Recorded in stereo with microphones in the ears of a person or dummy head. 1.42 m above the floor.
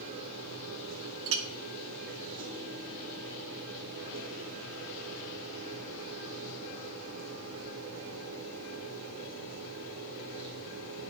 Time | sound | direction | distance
0.0 | a machine running | 70° right (ahead or behind) | 3 m
1.3 | a clink | 65° right (ahead or behind) | 1.2 m